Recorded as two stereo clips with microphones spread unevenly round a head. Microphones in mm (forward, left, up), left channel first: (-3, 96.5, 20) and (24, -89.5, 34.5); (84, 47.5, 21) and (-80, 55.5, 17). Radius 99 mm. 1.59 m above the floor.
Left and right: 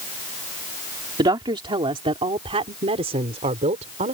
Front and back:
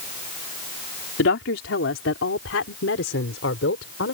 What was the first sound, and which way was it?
A woman speaking, 15° right.